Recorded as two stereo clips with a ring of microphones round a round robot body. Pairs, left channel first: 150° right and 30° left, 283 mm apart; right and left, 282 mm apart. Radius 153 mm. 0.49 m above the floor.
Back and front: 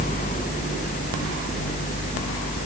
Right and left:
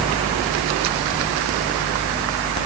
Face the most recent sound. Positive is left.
No sound to turn to.